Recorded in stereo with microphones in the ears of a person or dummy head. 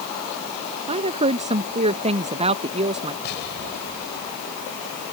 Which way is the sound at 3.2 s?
60° left (ahead or behind).